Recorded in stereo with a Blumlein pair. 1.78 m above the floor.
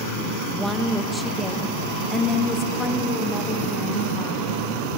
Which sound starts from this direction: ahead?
A woman speaking, at 0.5 s.